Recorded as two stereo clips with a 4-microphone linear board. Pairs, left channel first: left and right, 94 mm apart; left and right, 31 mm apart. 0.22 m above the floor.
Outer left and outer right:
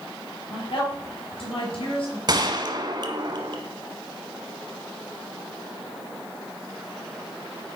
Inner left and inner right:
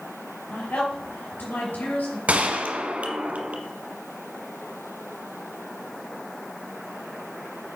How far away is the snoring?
No snoring in this recording.